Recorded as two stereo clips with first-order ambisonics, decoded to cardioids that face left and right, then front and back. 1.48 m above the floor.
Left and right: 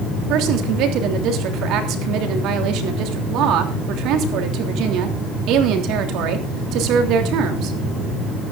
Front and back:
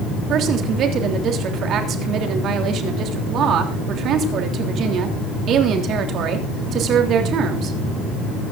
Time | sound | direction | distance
0.3 | a woman speaking | 130° right | 3 m